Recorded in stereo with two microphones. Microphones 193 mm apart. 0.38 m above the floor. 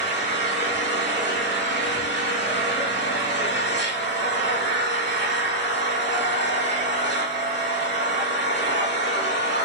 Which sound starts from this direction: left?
An engine running, at 0.0 s.